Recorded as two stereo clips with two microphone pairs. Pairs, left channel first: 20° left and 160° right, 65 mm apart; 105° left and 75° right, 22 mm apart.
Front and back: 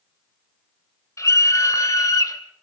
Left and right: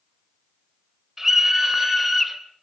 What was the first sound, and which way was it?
A scream, 5° right.